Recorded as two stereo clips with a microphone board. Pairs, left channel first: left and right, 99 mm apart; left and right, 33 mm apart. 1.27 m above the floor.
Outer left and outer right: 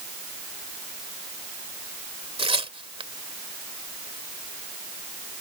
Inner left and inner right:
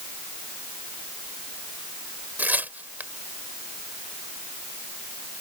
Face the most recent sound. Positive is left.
turn(degrees=-65)  # may be behind; listen again after turning